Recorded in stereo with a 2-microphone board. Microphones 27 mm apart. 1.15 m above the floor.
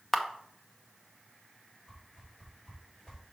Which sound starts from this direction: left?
A whoosh, at 1.9 s.